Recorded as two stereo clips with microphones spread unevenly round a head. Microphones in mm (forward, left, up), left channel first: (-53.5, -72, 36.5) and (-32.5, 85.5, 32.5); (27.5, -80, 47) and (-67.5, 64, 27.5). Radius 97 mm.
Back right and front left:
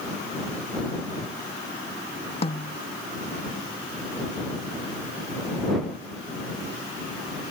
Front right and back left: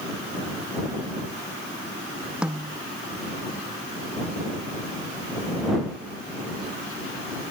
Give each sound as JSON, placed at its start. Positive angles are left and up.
{"t": 2.4, "sound": "a snare drum", "azimuth_deg": -150}